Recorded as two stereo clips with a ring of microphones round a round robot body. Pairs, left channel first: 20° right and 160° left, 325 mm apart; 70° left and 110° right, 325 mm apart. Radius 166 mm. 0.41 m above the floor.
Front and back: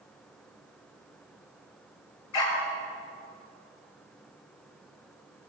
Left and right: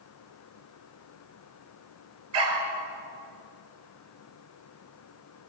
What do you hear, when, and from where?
2.3 s a dog barking: 65° right, 4 m